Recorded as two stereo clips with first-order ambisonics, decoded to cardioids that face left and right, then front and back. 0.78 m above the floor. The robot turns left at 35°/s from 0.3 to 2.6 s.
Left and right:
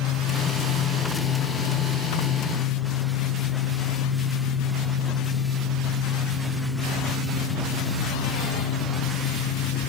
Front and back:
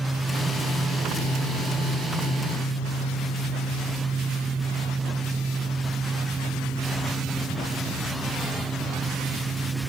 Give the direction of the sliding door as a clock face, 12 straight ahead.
No sliding door in this recording.